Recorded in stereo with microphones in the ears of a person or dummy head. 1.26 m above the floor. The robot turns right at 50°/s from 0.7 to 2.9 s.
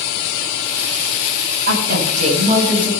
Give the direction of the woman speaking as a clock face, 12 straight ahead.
2 o'clock.